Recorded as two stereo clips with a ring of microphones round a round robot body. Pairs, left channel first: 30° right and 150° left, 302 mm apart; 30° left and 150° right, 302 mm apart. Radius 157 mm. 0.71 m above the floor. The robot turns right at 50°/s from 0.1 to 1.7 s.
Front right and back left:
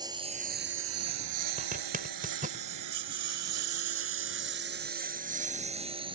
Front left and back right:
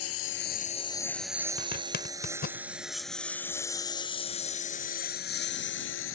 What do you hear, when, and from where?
0.0 s a lawn mower: 75° left
1.6 s a zipper: 80° left; by 2.6 s 85° left